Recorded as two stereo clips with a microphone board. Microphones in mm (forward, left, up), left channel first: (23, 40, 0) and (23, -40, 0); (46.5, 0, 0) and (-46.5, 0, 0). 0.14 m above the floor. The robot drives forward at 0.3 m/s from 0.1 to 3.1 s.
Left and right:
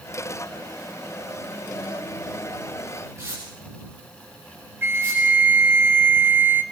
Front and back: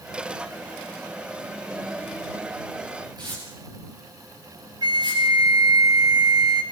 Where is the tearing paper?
145° right, 9.5 m.